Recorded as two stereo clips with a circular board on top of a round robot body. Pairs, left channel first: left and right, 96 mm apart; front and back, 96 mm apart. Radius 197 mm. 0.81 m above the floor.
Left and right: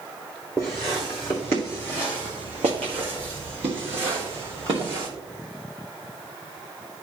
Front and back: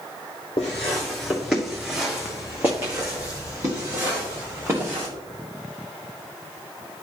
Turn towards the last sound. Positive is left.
turn(degrees=-115)